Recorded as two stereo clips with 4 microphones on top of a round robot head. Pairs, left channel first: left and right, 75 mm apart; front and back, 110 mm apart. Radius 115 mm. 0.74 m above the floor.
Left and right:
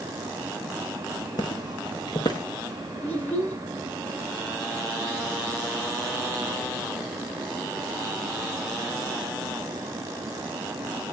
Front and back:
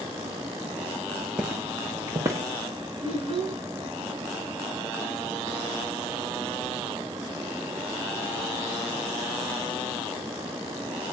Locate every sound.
1.4 s footsteps: 100° left, 0.9 m; by 2.5 s 115° left, 1.5 m
3.0 s a child speaking: 160° left, 5.5 m